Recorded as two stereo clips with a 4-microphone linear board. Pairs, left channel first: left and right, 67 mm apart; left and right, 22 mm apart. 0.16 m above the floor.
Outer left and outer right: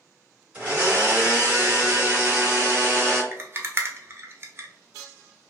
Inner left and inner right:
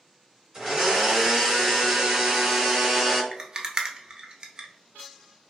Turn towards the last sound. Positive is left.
turn(degrees=-35)  # may be behind; listen again after turning